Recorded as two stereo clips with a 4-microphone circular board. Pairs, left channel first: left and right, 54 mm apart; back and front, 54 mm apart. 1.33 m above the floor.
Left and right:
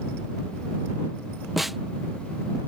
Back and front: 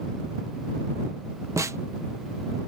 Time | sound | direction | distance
1.6 | a snare drum | 5° right | ?